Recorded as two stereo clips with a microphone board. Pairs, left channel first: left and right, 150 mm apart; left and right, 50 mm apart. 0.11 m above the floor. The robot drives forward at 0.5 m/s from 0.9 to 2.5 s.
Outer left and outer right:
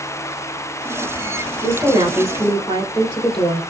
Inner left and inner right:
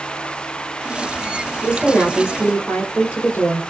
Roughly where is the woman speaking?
Left.